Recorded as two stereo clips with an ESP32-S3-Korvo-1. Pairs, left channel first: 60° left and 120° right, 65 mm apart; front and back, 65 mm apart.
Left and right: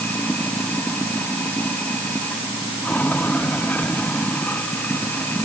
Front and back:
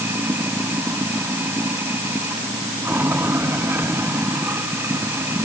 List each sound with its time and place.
0.0 s running water: 125° left